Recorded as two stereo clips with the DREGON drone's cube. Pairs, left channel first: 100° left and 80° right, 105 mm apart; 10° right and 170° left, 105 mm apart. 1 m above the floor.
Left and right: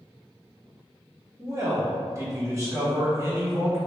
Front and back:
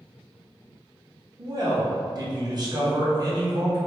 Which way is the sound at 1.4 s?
140° right.